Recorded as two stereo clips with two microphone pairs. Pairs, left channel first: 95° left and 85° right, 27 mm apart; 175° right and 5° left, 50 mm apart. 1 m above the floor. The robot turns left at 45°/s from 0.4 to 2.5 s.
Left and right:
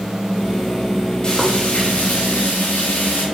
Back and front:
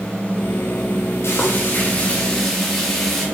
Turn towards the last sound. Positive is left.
turn(degrees=100)